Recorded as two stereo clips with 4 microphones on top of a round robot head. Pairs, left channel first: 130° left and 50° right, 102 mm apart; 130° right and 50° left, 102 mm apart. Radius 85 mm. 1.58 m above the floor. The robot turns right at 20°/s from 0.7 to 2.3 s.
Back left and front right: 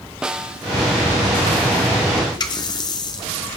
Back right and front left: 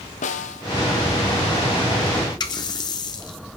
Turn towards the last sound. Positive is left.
turn(degrees=180)